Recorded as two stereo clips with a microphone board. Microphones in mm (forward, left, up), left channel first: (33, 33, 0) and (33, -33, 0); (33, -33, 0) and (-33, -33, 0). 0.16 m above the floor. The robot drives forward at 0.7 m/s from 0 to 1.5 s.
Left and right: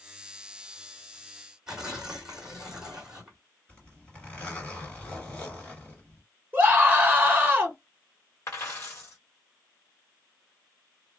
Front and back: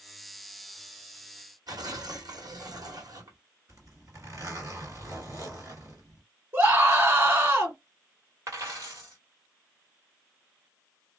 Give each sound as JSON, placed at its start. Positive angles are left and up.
{"t": 1.7, "sound": "tearing paper", "azimuth_deg": -170, "distance_m": 1.4}
{"t": 3.7, "sound": "a zipper", "azimuth_deg": 160, "distance_m": 2.5}
{"t": 6.5, "sound": "a scream", "azimuth_deg": -140, "distance_m": 2.0}
{"t": 8.5, "sound": "a dropped coin", "azimuth_deg": 140, "distance_m": 1.5}